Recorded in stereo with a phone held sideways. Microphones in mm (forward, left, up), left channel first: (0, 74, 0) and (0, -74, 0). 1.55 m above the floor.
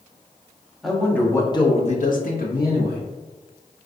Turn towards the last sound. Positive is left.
turn(degrees=80)